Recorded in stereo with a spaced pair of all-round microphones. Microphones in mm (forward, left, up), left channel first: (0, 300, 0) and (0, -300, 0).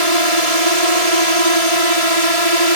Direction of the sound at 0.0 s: 75° right (ahead or behind).